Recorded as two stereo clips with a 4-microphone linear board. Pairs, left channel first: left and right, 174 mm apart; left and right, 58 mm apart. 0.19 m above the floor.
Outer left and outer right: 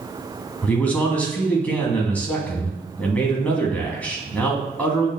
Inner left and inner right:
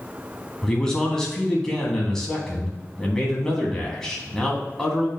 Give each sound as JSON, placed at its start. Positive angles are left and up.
{"t": 0.6, "sound": "a man speaking", "side_deg": 10, "distance_m": 1.7}